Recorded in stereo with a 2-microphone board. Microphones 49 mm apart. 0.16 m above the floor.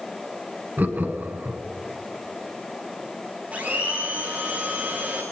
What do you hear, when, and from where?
0.8 s laughter: 40° right (ahead or behind), 1.9 m
3.5 s a blender: 35° right (ahead or behind), 7 m